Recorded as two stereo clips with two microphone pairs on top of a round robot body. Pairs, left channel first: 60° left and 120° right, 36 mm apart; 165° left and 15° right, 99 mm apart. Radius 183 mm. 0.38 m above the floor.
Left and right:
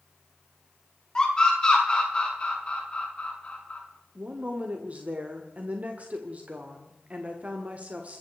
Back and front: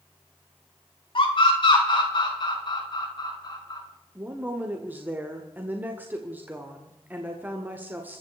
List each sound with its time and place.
1.1 s a scream: 130° left, 5 m; by 3.8 s 115° left, 5.5 m
4.2 s a woman speaking: 80° right, 2 m